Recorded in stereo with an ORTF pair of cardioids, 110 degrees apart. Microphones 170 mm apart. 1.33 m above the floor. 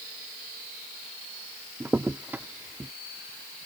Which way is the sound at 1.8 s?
10° right.